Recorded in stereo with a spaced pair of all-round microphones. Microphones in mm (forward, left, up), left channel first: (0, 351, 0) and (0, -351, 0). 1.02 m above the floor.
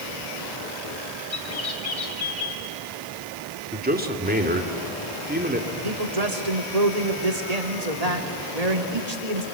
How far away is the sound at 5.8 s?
About 2.5 m.